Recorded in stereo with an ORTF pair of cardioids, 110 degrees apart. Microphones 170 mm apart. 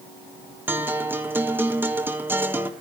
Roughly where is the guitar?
Ahead.